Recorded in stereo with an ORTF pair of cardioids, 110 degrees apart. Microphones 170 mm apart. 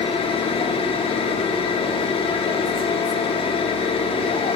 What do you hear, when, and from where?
0.0 s a machine running: 35° left, 0.8 m